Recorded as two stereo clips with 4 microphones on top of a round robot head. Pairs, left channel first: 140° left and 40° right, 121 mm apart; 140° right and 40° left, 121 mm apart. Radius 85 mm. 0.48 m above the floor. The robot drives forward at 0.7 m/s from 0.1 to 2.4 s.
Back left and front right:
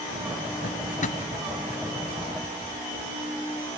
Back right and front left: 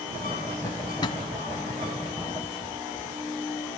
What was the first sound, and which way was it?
A drawer, 155° left.